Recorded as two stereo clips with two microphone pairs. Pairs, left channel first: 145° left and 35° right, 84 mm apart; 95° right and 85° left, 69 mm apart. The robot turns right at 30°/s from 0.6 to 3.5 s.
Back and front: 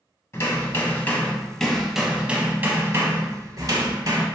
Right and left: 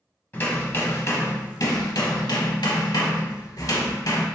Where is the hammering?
160° right, 0.6 m; by 4.3 s 70° right, 0.6 m.